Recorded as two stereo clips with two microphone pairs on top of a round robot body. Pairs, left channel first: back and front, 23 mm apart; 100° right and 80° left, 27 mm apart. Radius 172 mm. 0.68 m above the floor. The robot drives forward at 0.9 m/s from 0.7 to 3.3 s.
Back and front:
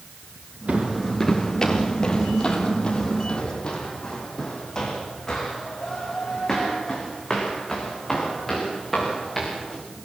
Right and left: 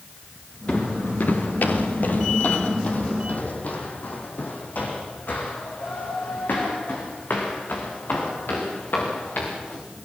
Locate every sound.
0.7 s footsteps: 35° right, 0.7 m; by 9.8 s 100° right, 6.5 m